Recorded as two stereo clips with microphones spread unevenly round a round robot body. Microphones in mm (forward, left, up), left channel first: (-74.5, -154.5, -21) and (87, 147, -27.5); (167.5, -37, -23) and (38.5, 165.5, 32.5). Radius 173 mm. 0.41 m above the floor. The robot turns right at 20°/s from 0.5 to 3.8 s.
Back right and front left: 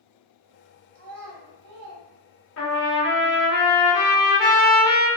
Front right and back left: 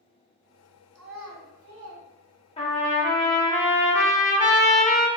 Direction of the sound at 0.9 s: 80° left.